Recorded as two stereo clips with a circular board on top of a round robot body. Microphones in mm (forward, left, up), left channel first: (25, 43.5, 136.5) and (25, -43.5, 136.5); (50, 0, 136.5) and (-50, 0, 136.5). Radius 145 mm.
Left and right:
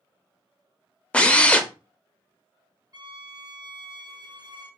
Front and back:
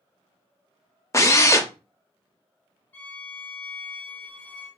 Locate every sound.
1.1 s a drill: 25° left, 0.7 m
2.9 s a violin: 65° right, 0.9 m